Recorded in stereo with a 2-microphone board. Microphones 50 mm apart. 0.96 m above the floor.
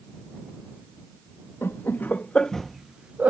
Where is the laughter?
50° left (ahead or behind); by 3.3 s 35° right (ahead or behind).